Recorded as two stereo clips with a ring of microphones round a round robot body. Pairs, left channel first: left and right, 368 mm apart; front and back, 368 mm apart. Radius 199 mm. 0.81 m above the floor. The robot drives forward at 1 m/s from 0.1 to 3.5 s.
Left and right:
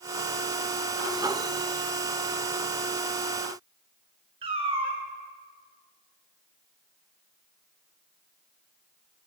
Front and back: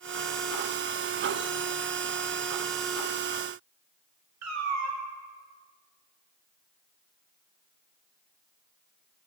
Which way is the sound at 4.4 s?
160° right.